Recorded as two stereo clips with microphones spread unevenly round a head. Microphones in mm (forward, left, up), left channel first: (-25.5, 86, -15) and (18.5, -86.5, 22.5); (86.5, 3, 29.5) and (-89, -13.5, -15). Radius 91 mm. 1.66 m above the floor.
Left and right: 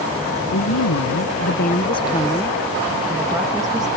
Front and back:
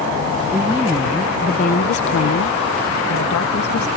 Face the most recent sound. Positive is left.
turn(degrees=-5)